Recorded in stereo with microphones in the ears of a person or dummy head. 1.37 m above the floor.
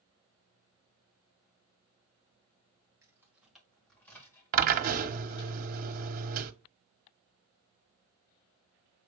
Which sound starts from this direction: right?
A drill, at 4.5 s.